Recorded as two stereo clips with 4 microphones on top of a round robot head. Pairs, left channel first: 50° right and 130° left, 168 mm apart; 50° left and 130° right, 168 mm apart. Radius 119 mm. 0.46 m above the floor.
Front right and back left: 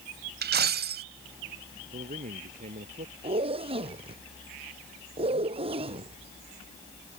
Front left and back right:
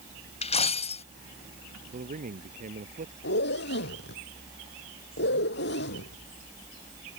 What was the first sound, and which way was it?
A dropped coin, 105° left.